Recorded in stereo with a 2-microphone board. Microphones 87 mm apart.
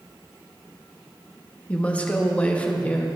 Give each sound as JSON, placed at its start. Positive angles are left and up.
{"t": 1.7, "sound": "a woman speaking", "side_deg": 15, "distance_m": 1.2}